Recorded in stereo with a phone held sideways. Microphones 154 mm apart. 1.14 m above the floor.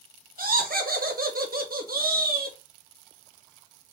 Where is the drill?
I don't hear a drill.